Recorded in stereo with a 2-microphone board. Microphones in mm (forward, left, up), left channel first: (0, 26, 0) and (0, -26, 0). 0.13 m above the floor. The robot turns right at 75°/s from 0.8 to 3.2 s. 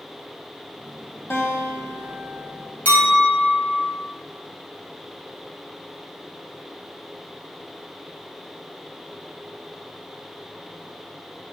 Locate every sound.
1.3 s a guitar: 60° left, 0.6 m; by 2.7 s 165° left, 0.6 m
2.9 s a clink: 30° left (ahead or behind), 1.3 m; by 3.9 s 10° left (ahead or behind), 1.3 m